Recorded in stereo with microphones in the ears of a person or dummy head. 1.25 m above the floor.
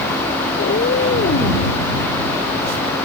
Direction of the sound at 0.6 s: 55° left (ahead or behind).